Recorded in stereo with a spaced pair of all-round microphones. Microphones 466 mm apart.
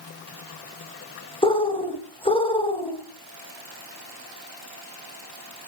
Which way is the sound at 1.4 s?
10° left (ahead or behind).